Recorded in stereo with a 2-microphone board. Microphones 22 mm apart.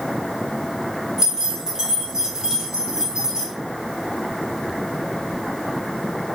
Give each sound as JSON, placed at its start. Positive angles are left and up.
{"t": 1.2, "sound": "keys jangling", "side_deg": -30, "distance_m": 1.0}